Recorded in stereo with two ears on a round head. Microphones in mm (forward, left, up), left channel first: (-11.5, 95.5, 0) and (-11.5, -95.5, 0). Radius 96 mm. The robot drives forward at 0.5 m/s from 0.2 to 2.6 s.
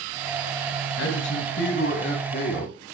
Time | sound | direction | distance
1.0 | a man speaking | 70° left (ahead or behind) | 3 m